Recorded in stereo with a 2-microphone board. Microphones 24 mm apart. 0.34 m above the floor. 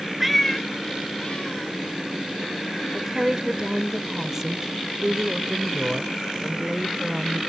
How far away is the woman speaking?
About 0.8 m.